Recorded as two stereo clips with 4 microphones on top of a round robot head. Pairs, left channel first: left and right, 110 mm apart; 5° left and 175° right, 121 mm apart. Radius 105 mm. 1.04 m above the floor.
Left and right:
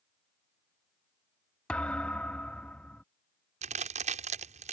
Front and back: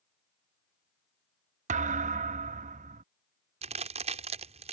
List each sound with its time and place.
1.7 s a thud: 175° left
3.6 s a crack: 125° right